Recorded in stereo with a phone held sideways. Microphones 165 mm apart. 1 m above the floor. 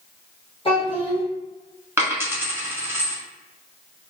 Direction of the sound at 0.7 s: 35° left (ahead or behind).